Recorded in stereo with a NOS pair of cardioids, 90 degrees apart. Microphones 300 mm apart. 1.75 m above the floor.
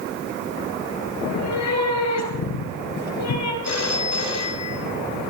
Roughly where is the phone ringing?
Ahead left.